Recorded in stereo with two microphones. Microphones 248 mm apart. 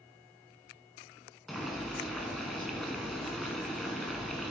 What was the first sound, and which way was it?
Boiling, centre (ahead or behind).